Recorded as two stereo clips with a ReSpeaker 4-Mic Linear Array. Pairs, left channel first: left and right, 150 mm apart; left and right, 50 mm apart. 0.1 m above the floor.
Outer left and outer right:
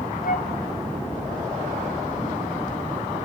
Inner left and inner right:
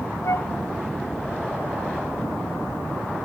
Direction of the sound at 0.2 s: 75° left (ahead or behind).